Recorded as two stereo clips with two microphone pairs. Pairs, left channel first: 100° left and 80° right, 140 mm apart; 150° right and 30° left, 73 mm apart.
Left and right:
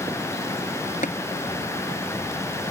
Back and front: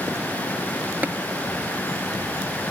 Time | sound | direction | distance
1.0 | tapping | 95° left | ?